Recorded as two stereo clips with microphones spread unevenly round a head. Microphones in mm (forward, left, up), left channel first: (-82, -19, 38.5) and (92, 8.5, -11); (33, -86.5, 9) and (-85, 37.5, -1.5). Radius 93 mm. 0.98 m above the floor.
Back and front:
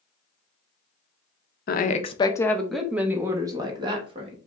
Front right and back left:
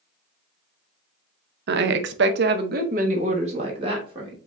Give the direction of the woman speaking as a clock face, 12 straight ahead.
7 o'clock.